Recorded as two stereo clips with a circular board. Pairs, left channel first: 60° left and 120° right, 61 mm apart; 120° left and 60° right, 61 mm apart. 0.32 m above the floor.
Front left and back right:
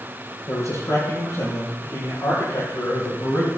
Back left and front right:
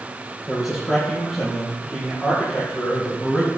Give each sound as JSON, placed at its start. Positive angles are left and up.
{"t": 0.5, "sound": "a man speaking", "azimuth_deg": 30, "distance_m": 6.5}